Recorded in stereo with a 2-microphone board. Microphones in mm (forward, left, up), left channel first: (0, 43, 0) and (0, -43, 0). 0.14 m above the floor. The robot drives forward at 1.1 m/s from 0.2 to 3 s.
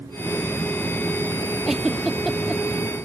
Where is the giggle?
Centre (ahead or behind).